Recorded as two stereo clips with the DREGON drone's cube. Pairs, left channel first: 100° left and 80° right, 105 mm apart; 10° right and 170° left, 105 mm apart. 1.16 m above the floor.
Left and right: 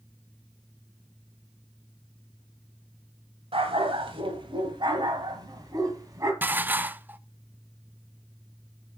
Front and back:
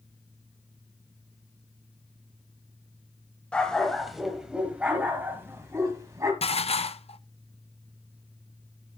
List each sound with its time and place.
3.5 s a dog barking: 90° right, 1.7 m; by 6.3 s 135° right, 2.5 m
6.4 s dishes clattering: 5° right, 0.5 m